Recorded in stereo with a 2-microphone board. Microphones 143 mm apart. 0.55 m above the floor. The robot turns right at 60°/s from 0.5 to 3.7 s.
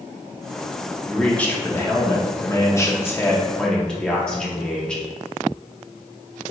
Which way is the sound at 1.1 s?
Centre (ahead or behind).